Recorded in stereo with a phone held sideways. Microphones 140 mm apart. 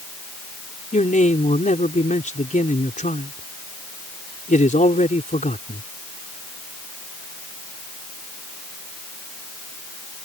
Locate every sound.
0.9 s a man speaking: 65° left (ahead or behind)